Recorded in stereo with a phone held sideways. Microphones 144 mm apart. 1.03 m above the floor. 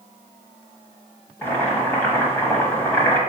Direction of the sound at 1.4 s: 15° left (ahead or behind).